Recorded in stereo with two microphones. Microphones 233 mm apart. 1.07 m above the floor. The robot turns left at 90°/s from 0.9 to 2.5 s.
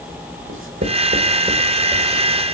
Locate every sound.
0.5 s writing: 60° right (ahead or behind), 1.8 m; by 2.2 s 45° left (ahead or behind), 1.8 m